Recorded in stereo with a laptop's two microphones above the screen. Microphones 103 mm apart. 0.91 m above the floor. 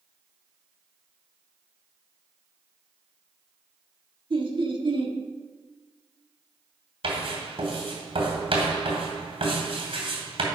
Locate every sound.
4.3 s laughter: 55° right (ahead or behind), 1.5 m
7.0 s writing: 70° right (ahead or behind), 2.5 m